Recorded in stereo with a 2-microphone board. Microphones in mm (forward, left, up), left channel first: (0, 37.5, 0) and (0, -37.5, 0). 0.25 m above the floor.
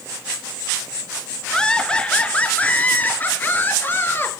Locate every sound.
1.5 s laughter: 10° left (ahead or behind), 3.5 m; by 4.3 s 30° left (ahead or behind), 5 m